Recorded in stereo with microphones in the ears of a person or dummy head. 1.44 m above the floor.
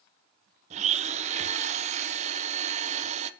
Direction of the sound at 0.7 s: 40° right (ahead or behind).